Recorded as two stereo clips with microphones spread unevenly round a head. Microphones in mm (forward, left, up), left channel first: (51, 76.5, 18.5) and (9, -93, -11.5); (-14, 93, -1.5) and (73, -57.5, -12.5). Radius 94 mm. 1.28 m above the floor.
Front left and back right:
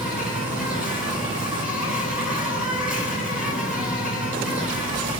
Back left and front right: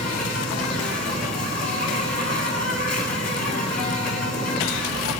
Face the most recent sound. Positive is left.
turn(degrees=170)